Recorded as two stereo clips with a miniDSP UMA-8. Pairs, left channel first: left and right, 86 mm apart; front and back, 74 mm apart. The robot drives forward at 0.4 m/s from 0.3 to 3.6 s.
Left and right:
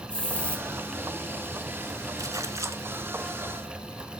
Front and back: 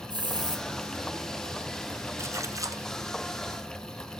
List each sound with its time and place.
0.1 s a hiss: 165° left, 1.9 m; by 0.7 s 170° left, 2 m
2.2 s a splash: 135° right, 0.9 m; by 2.8 s 145° right, 1.1 m